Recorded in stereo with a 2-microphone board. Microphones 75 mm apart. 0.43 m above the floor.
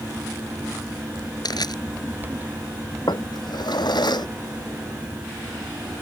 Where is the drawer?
75° left (ahead or behind).